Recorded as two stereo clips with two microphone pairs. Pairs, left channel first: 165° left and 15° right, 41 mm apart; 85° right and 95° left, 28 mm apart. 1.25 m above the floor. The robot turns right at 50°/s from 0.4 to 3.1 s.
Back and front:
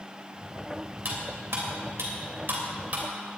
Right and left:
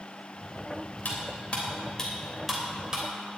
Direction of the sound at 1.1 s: 60° right.